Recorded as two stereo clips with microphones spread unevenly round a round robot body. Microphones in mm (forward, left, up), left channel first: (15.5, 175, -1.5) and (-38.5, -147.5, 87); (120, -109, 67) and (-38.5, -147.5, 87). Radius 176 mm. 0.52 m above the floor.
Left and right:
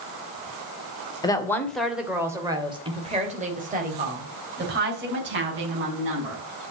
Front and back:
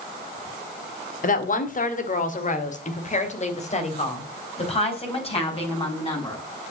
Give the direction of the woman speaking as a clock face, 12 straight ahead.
12 o'clock.